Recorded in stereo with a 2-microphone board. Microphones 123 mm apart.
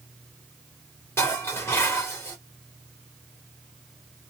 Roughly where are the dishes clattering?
Left.